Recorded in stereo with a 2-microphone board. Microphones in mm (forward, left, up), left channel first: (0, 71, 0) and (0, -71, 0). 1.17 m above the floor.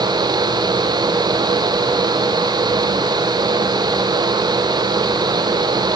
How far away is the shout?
No shout in this recording.